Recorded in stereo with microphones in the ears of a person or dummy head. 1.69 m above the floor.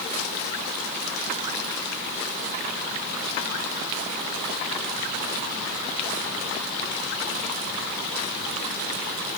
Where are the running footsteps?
I don't hear running footsteps.